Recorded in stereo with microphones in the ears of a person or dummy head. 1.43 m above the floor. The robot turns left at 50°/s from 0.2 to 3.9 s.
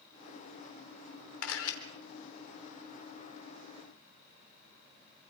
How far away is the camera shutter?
About 3.5 m.